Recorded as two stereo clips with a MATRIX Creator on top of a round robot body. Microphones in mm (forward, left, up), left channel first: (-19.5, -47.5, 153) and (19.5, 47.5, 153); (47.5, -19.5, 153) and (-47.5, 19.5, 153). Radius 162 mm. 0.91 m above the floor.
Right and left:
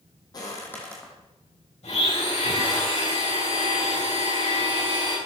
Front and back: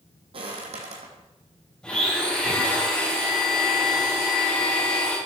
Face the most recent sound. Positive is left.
turn(degrees=-105)